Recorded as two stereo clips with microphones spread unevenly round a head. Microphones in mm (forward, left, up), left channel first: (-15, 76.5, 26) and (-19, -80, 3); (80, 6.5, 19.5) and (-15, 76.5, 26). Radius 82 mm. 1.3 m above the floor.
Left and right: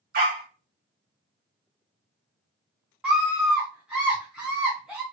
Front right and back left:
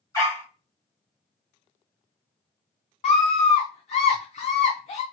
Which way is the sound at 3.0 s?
5° right.